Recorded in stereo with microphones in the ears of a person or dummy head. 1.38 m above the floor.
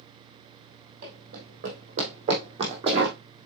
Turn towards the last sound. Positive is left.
turn(degrees=-30)  # may be behind; listen again after turning